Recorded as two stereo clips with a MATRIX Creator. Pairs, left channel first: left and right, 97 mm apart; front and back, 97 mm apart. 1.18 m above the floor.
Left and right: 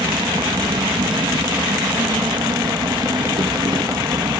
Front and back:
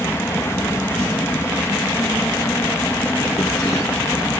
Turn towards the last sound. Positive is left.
turn(degrees=-60)